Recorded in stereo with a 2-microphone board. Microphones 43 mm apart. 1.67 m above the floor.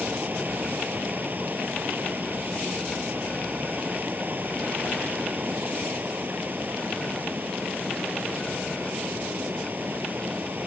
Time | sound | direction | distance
0.0 | running water | 45° right (ahead or behind) | ?